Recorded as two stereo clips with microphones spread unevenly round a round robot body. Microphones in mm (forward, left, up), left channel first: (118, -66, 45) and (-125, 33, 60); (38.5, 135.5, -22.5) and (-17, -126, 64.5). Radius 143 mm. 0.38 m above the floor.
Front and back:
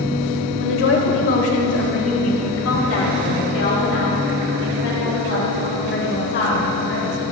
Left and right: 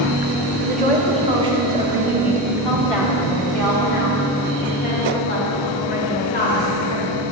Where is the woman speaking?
35° right, 1.9 m; by 7.2 s 25° left, 4.5 m.